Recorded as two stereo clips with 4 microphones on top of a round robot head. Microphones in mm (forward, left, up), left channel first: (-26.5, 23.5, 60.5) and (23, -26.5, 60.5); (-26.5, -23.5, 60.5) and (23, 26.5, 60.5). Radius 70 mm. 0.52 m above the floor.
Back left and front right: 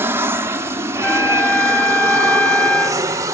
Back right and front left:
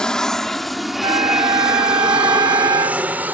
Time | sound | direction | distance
0.0 | an aircraft | 60° right | ?
1.0 | a trumpet | 65° left | ?